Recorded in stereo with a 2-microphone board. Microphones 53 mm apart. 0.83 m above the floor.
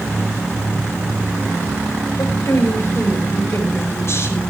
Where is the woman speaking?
60° left (ahead or behind), 5 m.